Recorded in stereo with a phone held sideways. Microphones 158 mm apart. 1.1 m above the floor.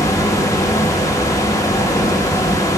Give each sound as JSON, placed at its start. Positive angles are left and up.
{"t": 0.0, "sound": "a fan", "side_deg": 20, "distance_m": 0.9}